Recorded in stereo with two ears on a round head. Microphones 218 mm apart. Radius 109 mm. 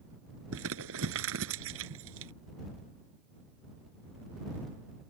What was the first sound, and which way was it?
Crumpling, 60° right (ahead or behind).